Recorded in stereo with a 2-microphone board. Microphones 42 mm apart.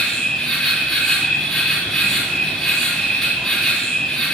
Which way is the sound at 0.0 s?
5° left (ahead or behind).